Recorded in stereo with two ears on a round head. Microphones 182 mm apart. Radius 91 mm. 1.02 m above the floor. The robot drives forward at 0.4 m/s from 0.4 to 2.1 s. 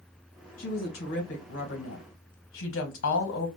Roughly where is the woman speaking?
Left.